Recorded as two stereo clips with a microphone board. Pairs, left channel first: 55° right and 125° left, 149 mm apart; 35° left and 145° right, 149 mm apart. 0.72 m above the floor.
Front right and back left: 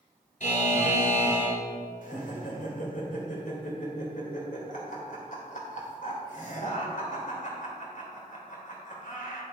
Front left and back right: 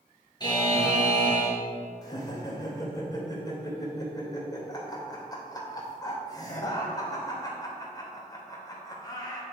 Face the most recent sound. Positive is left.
turn(degrees=-30)